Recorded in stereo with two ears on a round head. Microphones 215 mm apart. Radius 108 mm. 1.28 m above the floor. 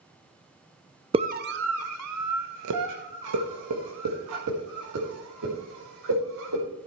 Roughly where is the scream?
Right.